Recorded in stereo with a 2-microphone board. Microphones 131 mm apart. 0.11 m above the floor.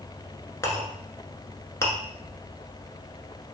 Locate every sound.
0.6 s a clink: 20° left (ahead or behind), 0.7 m